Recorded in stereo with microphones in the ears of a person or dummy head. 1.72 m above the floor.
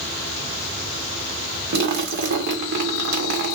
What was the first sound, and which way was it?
A splash, 60° right (ahead or behind).